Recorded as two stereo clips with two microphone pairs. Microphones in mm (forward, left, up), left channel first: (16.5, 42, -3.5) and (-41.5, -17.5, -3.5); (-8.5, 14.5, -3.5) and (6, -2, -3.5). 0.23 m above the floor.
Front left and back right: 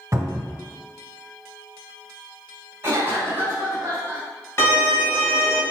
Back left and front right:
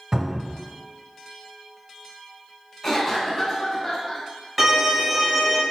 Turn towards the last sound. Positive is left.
turn(degrees=30)